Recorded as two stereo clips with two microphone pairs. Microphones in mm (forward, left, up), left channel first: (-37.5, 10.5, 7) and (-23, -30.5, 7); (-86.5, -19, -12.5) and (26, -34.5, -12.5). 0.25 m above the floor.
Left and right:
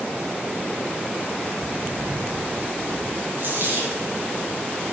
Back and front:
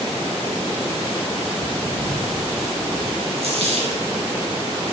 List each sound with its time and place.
1.6 s footsteps: 40° right, 1.8 m; by 3.3 s 90° right, 2 m
3.4 s a dropped coin: 35° right, 6 m